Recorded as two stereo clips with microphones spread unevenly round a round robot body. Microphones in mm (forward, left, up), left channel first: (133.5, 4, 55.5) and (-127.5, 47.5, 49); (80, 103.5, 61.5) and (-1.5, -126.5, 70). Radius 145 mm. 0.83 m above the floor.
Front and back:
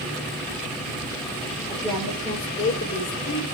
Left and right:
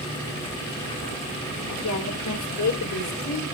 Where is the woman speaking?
80° left, 3 m; by 3.4 s 40° left, 3 m.